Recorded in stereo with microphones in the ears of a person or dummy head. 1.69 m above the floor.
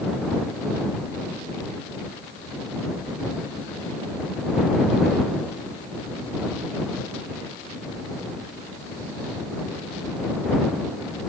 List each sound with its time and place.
Only background noise.